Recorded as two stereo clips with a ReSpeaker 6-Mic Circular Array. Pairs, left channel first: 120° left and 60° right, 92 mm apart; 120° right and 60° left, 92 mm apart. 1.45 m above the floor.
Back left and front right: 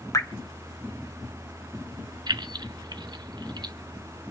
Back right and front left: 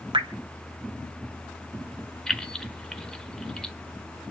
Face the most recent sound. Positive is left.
turn(degrees=-35)